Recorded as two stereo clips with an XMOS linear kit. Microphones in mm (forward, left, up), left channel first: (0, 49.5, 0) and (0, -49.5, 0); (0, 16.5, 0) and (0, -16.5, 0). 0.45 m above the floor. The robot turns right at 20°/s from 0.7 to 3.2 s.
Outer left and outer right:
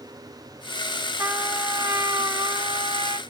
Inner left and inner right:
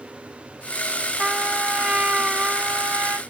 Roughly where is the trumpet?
Behind right.